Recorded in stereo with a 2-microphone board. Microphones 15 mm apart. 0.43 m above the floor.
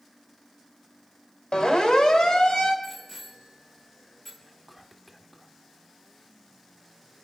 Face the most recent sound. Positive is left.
turn(degrees=-5)  # may be behind; listen again after turning